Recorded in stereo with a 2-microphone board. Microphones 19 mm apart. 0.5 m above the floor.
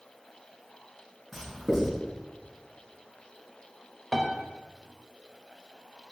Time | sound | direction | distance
1.3 | writing | 15° right (ahead or behind) | 4.5 m
4.1 | a piano | 5° left (ahead or behind) | 1.0 m